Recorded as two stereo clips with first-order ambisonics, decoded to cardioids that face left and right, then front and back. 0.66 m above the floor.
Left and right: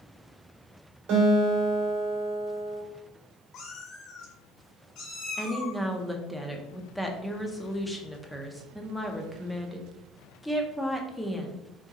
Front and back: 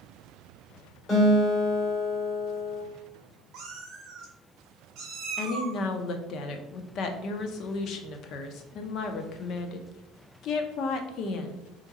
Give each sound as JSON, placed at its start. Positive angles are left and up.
{"t": 1.1, "sound": "a guitar", "azimuth_deg": -65, "distance_m": 2.5}
{"t": 3.5, "sound": "a cat meowing", "azimuth_deg": 135, "distance_m": 1.6}
{"t": 5.4, "sound": "a woman speaking", "azimuth_deg": 5, "distance_m": 0.6}